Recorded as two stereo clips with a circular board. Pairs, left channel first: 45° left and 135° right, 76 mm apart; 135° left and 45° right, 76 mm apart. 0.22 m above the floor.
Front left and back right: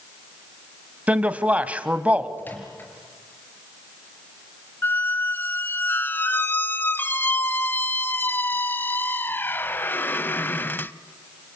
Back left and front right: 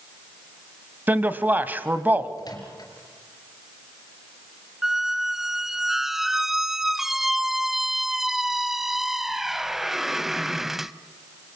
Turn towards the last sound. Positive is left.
turn(degrees=40)